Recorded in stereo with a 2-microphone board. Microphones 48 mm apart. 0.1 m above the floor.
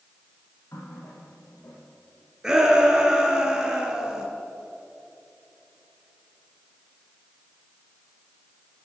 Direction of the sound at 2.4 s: 15° right (ahead or behind).